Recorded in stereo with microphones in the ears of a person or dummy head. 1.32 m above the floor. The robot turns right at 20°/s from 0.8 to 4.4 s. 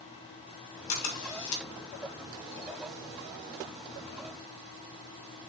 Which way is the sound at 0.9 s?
75° left (ahead or behind).